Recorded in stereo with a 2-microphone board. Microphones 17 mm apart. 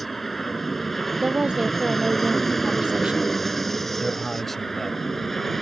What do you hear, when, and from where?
0.0 s an aircraft: 10° left (ahead or behind); by 5.6 s 15° left (ahead or behind)
1.2 s a woman speaking: 60° right (ahead or behind)
4.0 s a man speaking: 15° left (ahead or behind)